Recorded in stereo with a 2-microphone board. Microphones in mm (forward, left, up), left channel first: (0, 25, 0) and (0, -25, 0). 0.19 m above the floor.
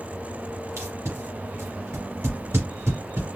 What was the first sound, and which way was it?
Tape being pulled, 65° right (ahead or behind).